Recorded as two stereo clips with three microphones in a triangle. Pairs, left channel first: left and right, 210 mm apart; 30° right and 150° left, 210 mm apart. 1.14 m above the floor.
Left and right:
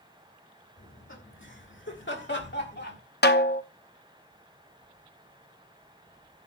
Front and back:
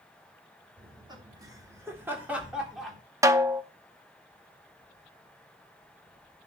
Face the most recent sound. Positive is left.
turn(degrees=80)